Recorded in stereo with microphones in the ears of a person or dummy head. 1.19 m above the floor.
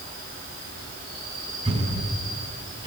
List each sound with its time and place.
0.0 s an insect: 45° right (ahead or behind), 9.5 m
1.6 s a thud: 25° right (ahead or behind), 5.5 m